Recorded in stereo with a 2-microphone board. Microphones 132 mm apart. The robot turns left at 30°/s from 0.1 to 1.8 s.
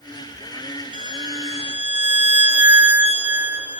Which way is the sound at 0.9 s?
40° right (ahead or behind).